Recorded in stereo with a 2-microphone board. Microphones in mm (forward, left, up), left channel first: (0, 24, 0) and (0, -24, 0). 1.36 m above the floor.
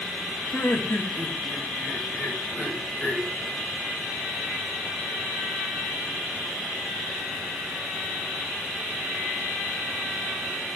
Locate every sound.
0.5 s laughter: 60° left (ahead or behind), 8 m; by 3.3 s 30° left (ahead or behind), 7 m